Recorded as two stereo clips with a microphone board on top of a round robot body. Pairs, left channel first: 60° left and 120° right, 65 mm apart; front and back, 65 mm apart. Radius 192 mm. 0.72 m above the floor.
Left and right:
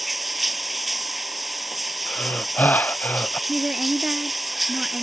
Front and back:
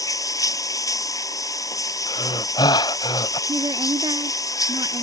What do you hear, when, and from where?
0.0 s running water: 30° right
2.1 s breathing: 5° right
3.5 s a woman speaking: 160° left